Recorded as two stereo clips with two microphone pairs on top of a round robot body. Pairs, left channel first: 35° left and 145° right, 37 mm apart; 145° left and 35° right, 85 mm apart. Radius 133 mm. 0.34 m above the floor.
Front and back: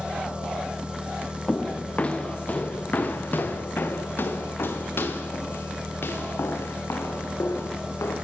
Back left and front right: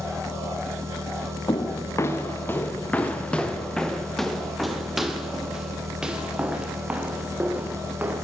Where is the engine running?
85° right, 4.5 m.